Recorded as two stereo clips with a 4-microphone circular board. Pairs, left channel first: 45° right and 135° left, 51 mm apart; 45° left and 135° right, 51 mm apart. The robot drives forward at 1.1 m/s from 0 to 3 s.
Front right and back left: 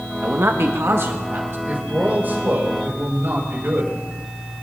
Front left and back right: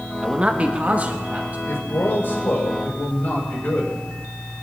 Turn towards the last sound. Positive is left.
turn(degrees=95)